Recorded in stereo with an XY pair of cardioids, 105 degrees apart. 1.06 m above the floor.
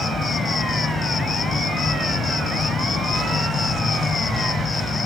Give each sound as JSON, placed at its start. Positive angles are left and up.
{"t": 0.0, "sound": "an insect", "azimuth_deg": 40}